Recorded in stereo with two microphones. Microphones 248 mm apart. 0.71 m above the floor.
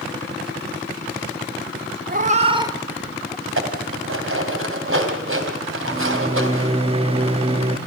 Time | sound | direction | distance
2.1 | a cat meowing | 40° right (ahead or behind) | 0.7 m
3.5 | dishes clattering | 60° right (ahead or behind) | 3 m
5.9 | a microwave | 25° right (ahead or behind) | 1.1 m